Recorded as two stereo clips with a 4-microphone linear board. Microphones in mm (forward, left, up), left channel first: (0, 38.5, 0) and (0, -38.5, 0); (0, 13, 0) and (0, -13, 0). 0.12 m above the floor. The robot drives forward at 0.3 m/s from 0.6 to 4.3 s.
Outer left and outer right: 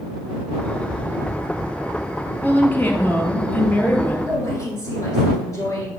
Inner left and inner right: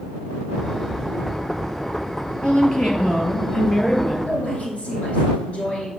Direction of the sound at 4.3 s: 45° left (ahead or behind).